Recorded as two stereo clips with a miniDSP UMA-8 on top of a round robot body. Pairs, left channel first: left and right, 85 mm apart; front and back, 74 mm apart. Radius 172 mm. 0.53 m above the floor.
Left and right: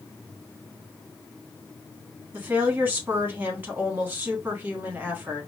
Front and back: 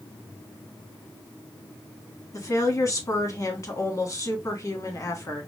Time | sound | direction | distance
2.3 | a woman speaking | 25° right | 1.5 m